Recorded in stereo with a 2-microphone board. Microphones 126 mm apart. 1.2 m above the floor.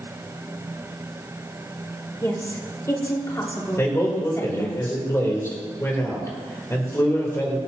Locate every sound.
2.2 s a woman speaking: 25° left (ahead or behind), 2.5 m
3.8 s a man speaking: 20° left (ahead or behind), 3.5 m